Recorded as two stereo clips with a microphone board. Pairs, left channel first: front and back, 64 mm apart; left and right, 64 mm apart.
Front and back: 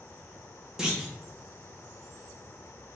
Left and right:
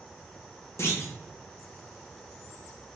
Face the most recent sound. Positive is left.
turn(degrees=105)